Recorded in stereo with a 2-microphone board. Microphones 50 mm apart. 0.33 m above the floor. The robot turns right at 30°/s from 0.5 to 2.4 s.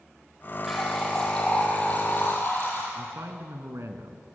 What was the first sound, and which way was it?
A running tap, 5° right.